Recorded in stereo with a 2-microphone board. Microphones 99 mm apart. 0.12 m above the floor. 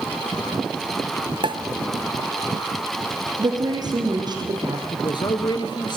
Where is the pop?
55° right (ahead or behind), 0.8 m.